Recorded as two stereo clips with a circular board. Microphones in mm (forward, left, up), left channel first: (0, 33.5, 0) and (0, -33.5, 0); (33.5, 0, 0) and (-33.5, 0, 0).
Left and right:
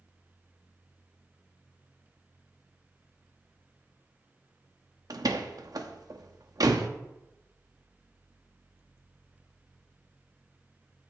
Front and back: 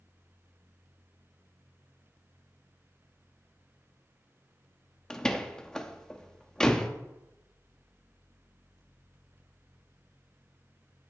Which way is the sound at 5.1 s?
80° right.